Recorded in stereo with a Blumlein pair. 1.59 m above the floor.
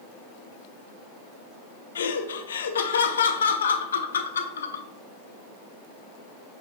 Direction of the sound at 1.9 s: 65° left.